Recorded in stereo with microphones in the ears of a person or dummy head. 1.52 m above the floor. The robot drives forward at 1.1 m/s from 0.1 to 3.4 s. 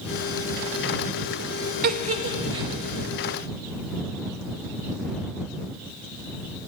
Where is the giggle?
50° right (ahead or behind), 0.7 m; by 2.7 s 20° right (ahead or behind), 1.6 m.